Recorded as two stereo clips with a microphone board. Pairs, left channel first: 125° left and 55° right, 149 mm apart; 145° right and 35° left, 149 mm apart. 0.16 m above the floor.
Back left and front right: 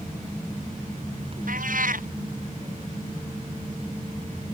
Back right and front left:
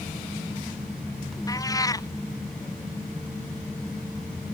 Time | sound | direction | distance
1.5 | a cat meowing | 80° right | ?